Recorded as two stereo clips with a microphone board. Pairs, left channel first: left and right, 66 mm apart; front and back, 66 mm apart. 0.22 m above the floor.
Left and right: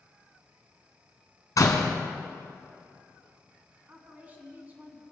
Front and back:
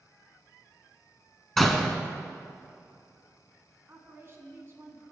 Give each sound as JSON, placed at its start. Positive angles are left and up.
{"t": 1.6, "sound": "a door slam", "azimuth_deg": 85, "distance_m": 1.2}
{"t": 3.9, "sound": "a woman speaking", "azimuth_deg": -145, "distance_m": 2.0}